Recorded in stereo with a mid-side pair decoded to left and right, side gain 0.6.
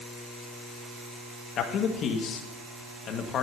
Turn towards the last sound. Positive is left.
turn(degrees=50)